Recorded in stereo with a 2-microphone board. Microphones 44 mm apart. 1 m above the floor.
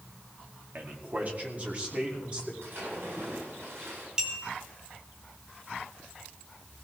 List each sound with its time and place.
0.8 s a man speaking: 45° right (ahead or behind), 2 m; by 2.5 s 25° right (ahead or behind), 3.5 m
2.6 s a splash: 70° right (ahead or behind), 10 m
4.2 s a clink: 20° right (ahead or behind), 2.5 m